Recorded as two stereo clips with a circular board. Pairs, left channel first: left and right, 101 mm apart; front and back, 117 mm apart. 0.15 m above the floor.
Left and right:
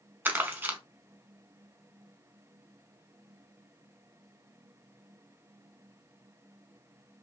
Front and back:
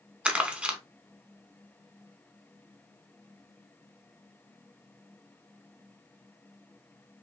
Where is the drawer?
No drawer in this recording.